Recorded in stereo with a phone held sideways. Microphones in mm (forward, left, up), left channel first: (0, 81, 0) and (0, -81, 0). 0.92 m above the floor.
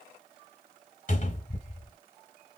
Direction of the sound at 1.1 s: 50° left (ahead or behind).